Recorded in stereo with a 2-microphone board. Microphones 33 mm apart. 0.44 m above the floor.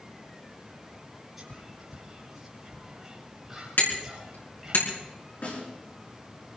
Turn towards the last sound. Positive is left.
turn(degrees=45)  # may be behind; listen again after turning